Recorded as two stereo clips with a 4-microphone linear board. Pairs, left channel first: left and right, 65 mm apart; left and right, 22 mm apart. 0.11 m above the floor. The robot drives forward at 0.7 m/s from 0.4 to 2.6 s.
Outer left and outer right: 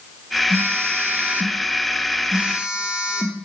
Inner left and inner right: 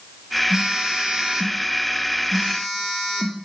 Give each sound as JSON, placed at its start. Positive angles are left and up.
{"t": 0.5, "sound": "a phone buzzing", "side_deg": -30, "distance_m": 0.7}